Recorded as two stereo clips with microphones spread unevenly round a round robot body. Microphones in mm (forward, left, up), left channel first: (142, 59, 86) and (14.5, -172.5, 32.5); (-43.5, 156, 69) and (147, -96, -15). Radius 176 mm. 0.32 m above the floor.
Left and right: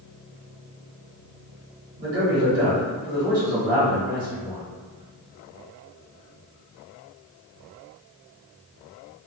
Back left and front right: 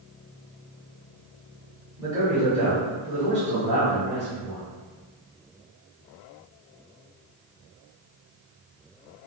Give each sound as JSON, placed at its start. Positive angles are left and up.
{"t": 2.0, "sound": "a man speaking", "azimuth_deg": -150, "distance_m": 1.3}